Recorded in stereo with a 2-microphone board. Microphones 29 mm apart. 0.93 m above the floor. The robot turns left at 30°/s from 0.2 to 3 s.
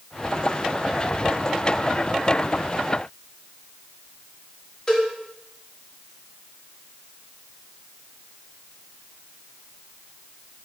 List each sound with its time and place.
4.9 s a cowbell: 30° left (ahead or behind), 1.5 m